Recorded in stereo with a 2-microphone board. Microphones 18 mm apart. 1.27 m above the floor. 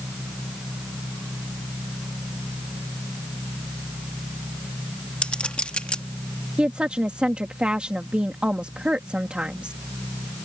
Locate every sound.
5.2 s a clink: 65° left (ahead or behind)
6.6 s a woman speaking: 60° right (ahead or behind)